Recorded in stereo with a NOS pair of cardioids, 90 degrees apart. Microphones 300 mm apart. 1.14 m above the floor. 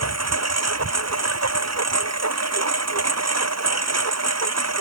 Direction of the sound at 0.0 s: 55° right.